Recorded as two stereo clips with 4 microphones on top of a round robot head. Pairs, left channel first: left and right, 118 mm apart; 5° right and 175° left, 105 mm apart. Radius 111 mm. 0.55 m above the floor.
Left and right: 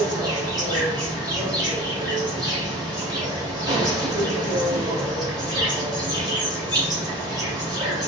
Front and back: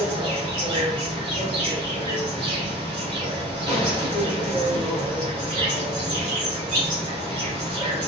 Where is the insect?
145° right, 3.5 m.